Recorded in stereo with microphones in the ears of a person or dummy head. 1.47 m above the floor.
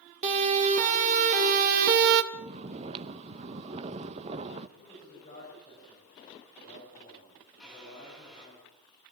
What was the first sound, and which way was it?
A siren, 35° right (ahead or behind).